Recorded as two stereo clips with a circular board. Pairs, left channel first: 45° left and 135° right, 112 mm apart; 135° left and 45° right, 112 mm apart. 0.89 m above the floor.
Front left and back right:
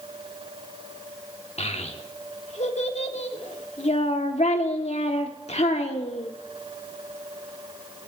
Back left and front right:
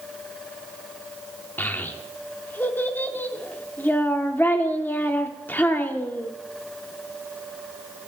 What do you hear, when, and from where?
1.6 s a child speaking: 60° left, 1.3 m